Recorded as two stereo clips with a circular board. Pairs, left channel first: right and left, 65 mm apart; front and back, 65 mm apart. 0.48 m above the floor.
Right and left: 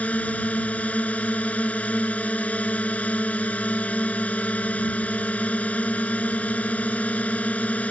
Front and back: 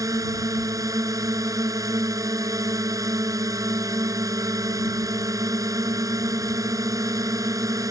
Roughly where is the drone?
Behind right.